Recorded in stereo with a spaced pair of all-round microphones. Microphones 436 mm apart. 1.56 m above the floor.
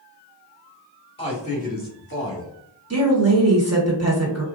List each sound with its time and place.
1.2 s a man speaking: 15° left (ahead or behind), 1.6 m; by 2.5 s 35° left (ahead or behind), 1.1 m
2.9 s a woman speaking: 35° right (ahead or behind), 1.3 m